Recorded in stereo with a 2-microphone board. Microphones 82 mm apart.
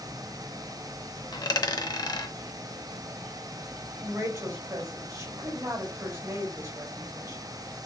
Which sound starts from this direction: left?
A dropped coin, at 1.3 s.